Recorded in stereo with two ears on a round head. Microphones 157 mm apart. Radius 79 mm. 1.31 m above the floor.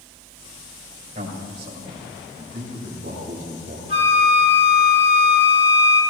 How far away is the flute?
About 4 m.